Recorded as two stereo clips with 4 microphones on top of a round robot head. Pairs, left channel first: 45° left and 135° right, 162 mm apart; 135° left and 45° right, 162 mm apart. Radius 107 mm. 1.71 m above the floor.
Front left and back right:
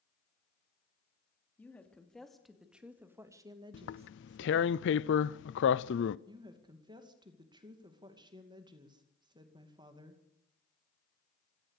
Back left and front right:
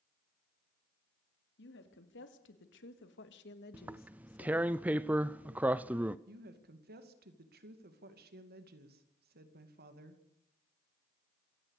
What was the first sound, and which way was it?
A woman speaking, 125° left.